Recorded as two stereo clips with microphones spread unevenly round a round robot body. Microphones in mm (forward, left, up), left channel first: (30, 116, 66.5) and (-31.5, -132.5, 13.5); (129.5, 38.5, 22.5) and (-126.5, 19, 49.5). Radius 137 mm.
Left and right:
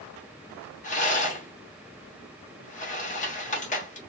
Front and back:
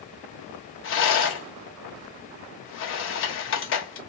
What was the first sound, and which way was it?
A rattle, 10° left.